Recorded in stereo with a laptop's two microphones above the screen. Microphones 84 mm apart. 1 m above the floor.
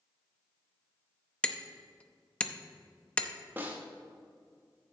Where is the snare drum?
25° right (ahead or behind), 0.9 m.